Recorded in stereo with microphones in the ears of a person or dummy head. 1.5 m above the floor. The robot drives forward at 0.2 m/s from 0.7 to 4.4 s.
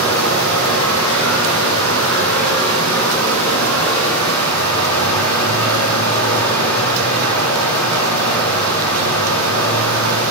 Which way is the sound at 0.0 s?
85° right.